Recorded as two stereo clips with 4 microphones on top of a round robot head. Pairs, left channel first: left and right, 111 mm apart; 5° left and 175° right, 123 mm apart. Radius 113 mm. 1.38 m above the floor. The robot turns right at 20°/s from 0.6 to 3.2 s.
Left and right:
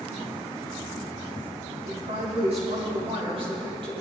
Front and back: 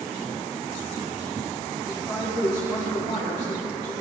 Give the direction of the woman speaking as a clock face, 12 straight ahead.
3 o'clock.